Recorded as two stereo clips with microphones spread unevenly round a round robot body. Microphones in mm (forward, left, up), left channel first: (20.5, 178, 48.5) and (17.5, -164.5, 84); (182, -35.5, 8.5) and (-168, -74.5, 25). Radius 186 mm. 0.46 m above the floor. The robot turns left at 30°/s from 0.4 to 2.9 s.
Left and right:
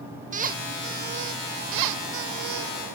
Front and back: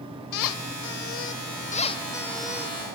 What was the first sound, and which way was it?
A squeak, 20° right.